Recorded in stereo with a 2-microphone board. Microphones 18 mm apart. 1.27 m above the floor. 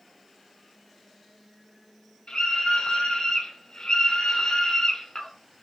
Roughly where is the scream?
Left.